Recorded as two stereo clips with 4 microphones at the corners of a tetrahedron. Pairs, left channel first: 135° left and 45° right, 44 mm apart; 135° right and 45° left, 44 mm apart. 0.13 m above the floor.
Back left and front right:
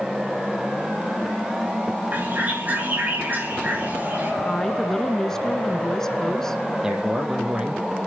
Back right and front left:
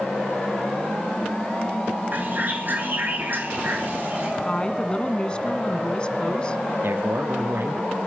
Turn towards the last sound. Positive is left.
turn(degrees=30)